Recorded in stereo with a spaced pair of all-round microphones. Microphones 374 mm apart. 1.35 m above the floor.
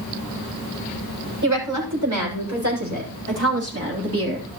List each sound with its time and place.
1.4 s a woman speaking: 55° right (ahead or behind), 6 m; by 4.5 s 30° right (ahead or behind), 3.5 m